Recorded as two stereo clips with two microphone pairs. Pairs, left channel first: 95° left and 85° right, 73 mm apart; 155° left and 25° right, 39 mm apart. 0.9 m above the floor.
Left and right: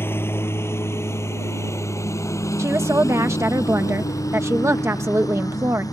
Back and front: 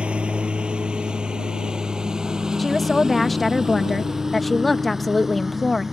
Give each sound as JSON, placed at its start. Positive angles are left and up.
{"t": 0.0, "sound": "a lawn mower", "azimuth_deg": 35}
{"t": 2.6, "sound": "a woman speaking", "azimuth_deg": -120}